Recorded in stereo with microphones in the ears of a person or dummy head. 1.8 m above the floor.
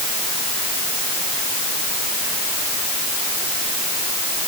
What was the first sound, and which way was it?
Only background noise.